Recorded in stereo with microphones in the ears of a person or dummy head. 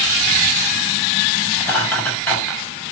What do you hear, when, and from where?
1.6 s laughter: 5° left (ahead or behind), 7 m